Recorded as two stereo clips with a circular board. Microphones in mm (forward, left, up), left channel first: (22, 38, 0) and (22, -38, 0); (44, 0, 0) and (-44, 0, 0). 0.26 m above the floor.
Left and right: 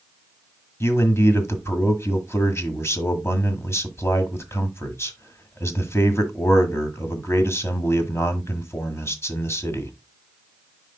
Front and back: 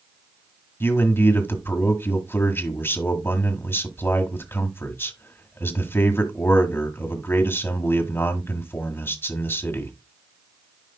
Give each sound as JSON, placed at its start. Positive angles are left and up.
{"t": 0.8, "sound": "a man speaking", "azimuth_deg": 50, "distance_m": 1.5}